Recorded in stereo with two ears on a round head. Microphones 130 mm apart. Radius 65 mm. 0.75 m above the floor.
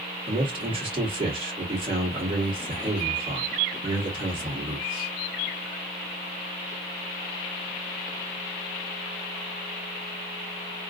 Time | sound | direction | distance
0.3 | a man speaking | 35° right (ahead or behind) | 2 m